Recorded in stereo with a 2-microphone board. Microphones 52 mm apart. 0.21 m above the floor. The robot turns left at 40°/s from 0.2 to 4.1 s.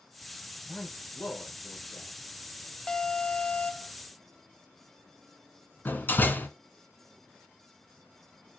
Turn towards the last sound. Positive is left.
turn(degrees=40)  # may be behind; listen again after turning